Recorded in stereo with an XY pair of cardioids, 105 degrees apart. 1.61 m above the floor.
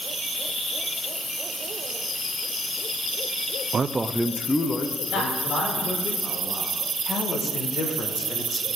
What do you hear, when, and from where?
3.7 s a man speaking: 40° right, 0.5 m; by 6.1 s 45° left, 1.9 m
5.1 s a man speaking: 65° left, 4.5 m
7.1 s a man speaking: 55° left, 1.6 m